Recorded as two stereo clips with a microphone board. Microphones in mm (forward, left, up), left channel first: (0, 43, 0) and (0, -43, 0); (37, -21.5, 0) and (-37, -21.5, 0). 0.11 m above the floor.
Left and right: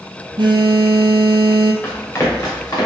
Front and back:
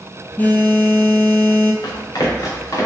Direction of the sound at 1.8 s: 30° left.